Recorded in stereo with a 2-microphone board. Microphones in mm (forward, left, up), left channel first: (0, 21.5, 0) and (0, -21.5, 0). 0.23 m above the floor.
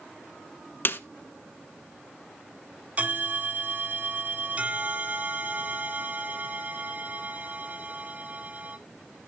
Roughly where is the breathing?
No breathing in this recording.